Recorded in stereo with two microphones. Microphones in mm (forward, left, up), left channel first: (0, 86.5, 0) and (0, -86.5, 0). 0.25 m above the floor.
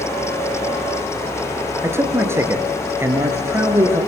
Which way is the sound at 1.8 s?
15° right (ahead or behind).